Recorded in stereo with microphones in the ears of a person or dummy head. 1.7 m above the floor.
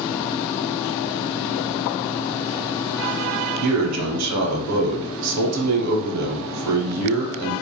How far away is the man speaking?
About 0.7 m.